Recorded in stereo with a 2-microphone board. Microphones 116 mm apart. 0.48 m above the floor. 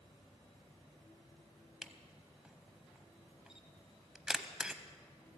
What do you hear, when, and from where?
1.8 s a camera shutter: 5° right (ahead or behind), 0.7 m